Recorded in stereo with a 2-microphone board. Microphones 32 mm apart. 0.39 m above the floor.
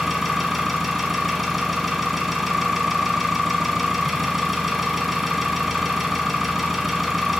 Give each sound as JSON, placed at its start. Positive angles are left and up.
{"t": 0.0, "sound": "an engine running", "side_deg": -5, "distance_m": 1.2}